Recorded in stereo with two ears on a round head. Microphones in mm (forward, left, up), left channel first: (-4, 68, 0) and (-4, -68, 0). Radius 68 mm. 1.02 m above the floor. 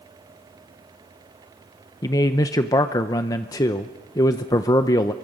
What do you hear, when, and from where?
2.0 s a man speaking: 25° left (ahead or behind), 0.6 m